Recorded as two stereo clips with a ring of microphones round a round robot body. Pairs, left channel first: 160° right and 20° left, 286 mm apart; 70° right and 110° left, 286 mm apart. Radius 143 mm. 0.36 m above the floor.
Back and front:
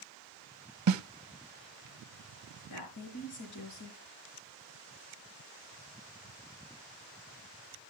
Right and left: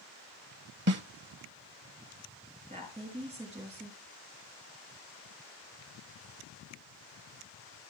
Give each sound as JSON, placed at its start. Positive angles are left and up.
{"t": 0.9, "sound": "a snare drum", "azimuth_deg": 60, "distance_m": 0.7}
{"t": 2.7, "sound": "a woman speaking", "azimuth_deg": 180, "distance_m": 5.0}